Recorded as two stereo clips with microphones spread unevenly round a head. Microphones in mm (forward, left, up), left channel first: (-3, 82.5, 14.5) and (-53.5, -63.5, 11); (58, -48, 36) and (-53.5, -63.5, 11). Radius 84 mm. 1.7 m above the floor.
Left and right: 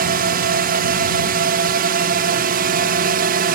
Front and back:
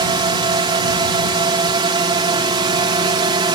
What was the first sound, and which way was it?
A drone, 130° right.